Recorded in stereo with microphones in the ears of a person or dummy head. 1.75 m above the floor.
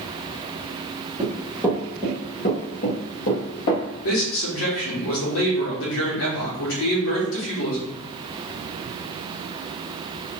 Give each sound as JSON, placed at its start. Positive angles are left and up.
{"t": 1.2, "sound": "running footsteps", "side_deg": -5, "distance_m": 1.9}
{"t": 4.0, "sound": "a man speaking", "side_deg": 75, "distance_m": 2.0}